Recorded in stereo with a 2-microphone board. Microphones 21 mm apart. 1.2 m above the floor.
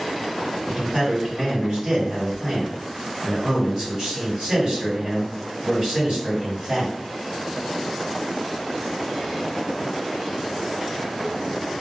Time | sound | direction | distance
0.7 | a man speaking | 45° right (ahead or behind) | 2.0 m